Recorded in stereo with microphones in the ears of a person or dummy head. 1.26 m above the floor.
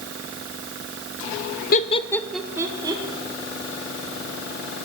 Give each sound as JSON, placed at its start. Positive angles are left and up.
{"t": 1.7, "sound": "laughter", "side_deg": 40, "distance_m": 0.7}